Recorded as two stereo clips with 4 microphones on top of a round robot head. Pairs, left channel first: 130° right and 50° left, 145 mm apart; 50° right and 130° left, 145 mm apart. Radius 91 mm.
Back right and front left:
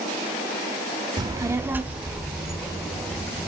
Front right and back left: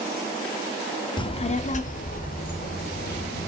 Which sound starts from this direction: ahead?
A child speaking, at 1.2 s.